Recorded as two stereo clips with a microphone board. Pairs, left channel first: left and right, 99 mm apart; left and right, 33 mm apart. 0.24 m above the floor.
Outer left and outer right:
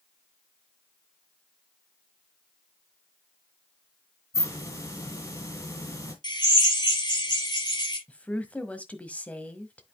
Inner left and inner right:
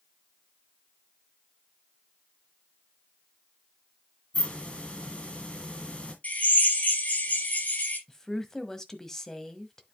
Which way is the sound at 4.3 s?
35° left (ahead or behind).